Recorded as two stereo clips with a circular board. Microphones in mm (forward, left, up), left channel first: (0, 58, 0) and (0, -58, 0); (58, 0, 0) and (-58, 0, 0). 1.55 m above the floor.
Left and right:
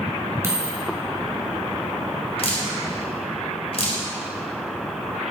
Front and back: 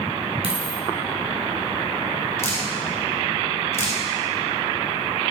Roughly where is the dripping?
Ahead left.